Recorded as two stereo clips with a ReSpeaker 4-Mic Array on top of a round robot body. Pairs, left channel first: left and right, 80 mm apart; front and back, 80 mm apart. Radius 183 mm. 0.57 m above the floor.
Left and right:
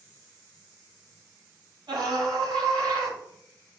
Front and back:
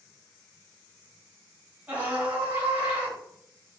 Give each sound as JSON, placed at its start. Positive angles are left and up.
{"t": 1.9, "sound": "a scream", "azimuth_deg": -110, "distance_m": 7.0}